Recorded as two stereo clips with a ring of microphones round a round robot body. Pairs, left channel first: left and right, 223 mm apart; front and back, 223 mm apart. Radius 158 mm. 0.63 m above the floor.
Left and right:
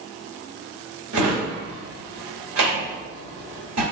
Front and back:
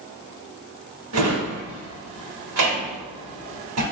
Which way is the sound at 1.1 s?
135° right.